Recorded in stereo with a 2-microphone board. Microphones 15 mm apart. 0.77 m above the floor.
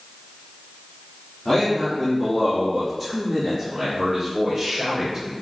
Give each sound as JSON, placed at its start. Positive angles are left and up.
{"t": 1.4, "sound": "a man speaking", "side_deg": 45, "distance_m": 1.5}